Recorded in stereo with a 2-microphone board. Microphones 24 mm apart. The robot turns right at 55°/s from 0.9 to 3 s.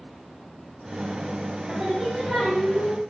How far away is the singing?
About 1.6 m.